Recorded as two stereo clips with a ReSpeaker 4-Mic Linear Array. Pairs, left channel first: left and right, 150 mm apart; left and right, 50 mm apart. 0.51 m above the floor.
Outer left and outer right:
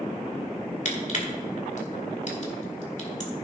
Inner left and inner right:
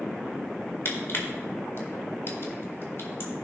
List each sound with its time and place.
0.8 s crushing: 55° left (ahead or behind), 2.0 m